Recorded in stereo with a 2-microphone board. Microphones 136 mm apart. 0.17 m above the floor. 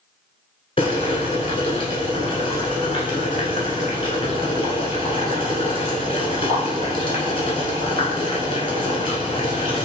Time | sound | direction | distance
0.8 | boiling | 45° left (ahead or behind) | 1.0 m